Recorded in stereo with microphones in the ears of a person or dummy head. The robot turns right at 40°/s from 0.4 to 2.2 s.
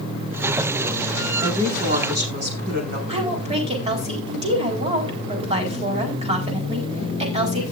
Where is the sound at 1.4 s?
160° right, 5 m; by 3.0 s 130° right, 5 m.